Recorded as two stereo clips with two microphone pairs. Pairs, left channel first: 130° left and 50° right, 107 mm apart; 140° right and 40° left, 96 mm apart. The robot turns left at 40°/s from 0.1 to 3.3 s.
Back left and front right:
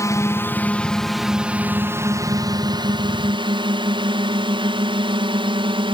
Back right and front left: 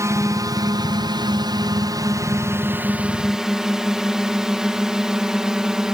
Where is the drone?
85° left; by 5.9 s 45° right.